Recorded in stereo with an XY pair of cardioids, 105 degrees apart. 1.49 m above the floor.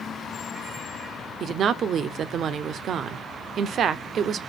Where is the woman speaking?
60° right, 0.6 m.